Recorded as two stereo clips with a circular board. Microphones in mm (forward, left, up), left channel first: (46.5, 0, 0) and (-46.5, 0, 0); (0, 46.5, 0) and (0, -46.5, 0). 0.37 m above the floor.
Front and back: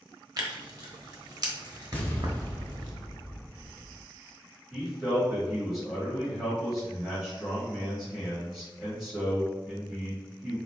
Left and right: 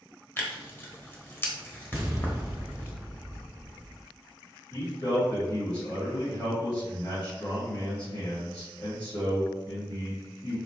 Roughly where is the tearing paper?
Behind left.